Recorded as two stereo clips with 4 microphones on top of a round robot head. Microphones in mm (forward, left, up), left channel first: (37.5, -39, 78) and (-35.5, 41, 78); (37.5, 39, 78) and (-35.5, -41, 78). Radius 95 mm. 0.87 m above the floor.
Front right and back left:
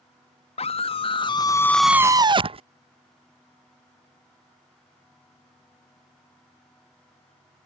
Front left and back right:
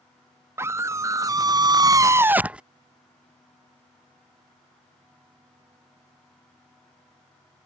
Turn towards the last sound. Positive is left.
turn(degrees=150)